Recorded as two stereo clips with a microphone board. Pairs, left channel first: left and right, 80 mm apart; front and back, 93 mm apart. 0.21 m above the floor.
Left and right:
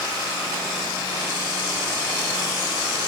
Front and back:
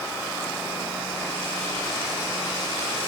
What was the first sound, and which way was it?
Only background noise.